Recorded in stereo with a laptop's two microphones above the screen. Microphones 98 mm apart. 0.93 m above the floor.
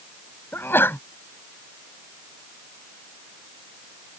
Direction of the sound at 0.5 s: 25° left (ahead or behind).